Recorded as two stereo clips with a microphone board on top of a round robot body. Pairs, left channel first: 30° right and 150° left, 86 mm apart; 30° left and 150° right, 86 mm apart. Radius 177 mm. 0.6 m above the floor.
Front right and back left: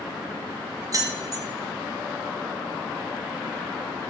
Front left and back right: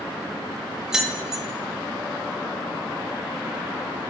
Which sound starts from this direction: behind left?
Keys jangling, at 0.9 s.